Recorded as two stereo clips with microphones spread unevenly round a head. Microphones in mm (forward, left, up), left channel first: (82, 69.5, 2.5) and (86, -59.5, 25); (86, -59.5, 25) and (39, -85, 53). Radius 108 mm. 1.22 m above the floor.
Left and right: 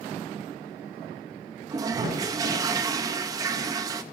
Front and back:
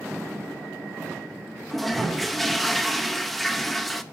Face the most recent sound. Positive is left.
turn(degrees=-105)